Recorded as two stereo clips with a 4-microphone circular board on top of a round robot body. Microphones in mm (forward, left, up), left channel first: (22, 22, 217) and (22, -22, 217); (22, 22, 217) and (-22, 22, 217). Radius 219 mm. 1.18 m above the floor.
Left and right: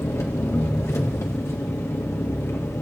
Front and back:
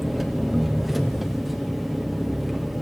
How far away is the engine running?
About 1.9 m.